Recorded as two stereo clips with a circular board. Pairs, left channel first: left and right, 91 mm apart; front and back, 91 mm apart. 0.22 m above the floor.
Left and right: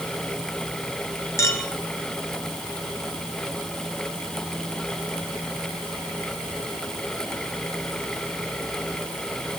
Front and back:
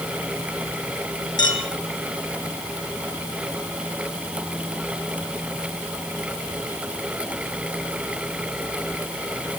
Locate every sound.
1.4 s a clink: 35° left, 3 m